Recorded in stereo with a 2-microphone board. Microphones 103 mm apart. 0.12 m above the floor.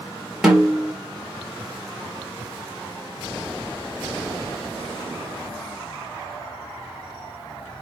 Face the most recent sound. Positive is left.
turn(degrees=-5)  # may be behind; listen again after turning